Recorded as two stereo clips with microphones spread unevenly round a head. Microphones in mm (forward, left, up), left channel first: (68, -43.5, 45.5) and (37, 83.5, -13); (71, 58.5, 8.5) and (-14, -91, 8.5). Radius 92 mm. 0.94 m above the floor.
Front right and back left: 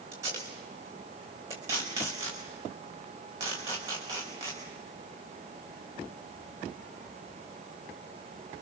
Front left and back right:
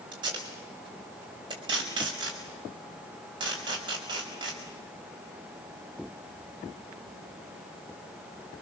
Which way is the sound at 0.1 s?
175° left.